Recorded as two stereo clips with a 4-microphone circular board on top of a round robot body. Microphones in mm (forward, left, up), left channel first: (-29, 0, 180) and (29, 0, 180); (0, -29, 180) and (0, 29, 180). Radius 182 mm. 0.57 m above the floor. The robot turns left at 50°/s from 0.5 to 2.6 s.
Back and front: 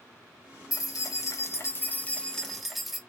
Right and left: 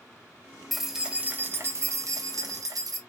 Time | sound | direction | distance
0.7 | keys jangling | straight behind | 0.8 m